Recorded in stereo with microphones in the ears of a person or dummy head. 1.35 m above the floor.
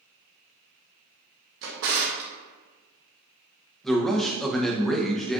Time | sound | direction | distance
1.6 | a drawer | 60° right (ahead or behind) | 0.8 m
3.8 | a man speaking | 5° right (ahead or behind) | 0.7 m